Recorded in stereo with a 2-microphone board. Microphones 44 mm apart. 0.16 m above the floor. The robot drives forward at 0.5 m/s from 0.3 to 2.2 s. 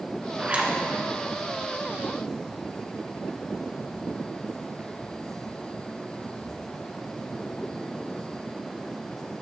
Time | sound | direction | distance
0.4 | a zipper | 30° right (ahead or behind) | 1.3 m